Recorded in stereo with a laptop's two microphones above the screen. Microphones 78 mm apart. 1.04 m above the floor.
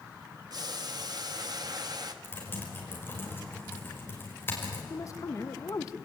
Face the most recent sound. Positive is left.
turn(degrees=45)  # may be behind; listen again after turning